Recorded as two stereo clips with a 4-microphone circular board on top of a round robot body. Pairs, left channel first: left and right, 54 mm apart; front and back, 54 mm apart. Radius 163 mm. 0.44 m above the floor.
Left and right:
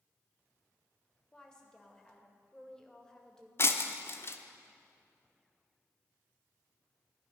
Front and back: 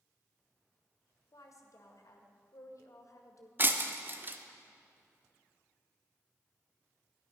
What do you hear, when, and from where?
1.3 s a woman speaking: 15° left, 2 m
3.6 s breaking glass: 130° left, 1.0 m